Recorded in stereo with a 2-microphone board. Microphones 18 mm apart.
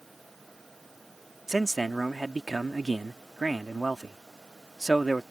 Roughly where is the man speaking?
Right.